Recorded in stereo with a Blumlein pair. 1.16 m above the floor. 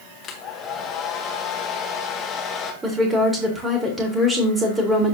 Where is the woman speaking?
15° right, 3.5 m.